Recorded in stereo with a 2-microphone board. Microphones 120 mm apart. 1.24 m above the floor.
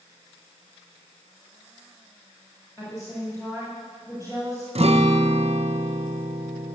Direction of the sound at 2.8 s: 25° left (ahead or behind).